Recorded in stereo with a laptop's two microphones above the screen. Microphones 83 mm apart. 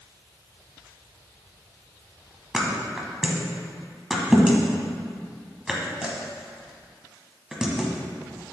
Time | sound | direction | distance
2.5 | a thud | 5° right (ahead or behind) | 1.0 m